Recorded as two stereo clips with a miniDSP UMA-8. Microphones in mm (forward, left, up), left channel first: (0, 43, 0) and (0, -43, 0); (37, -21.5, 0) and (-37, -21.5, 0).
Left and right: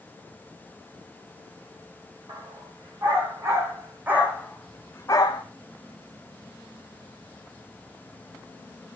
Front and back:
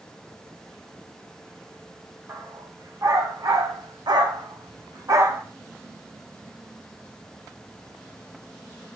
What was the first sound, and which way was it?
A dog barking, 130° right.